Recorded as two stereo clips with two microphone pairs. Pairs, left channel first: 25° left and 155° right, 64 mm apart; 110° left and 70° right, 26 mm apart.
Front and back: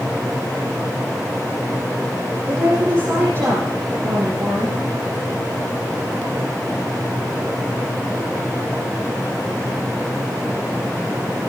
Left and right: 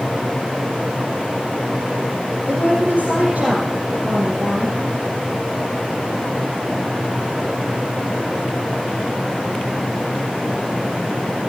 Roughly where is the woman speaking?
Right.